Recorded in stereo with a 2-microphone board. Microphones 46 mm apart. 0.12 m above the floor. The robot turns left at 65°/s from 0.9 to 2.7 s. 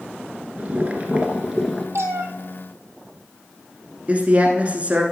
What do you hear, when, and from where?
0.6 s boiling: 125° right, 1.0 m; by 1.9 s 175° left, 1.0 m
1.9 s a cat meowing: 75° right (ahead or behind), 0.8 m; by 2.3 s 65° right (ahead or behind), 0.8 m
4.1 s a man speaking: 30° right (ahead or behind), 1.2 m